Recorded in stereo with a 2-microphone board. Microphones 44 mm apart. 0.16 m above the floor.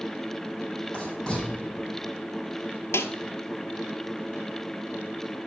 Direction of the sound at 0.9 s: 15° left (ahead or behind).